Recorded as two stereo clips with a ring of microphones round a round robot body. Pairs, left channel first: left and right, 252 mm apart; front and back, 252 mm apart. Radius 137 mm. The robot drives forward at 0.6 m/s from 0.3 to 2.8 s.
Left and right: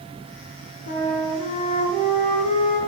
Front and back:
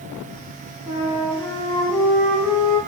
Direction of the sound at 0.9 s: 70° left.